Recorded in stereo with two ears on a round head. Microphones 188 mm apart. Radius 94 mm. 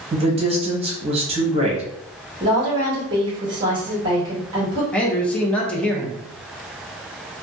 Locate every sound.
0.1 s a woman speaking: 30° right (ahead or behind), 0.8 m
2.4 s a woman speaking: 20° right (ahead or behind), 1.3 m
4.9 s a man speaking: 5° left (ahead or behind), 0.6 m